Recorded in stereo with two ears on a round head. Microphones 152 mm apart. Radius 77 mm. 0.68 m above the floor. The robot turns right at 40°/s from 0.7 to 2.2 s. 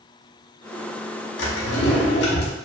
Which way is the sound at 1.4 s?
70° left.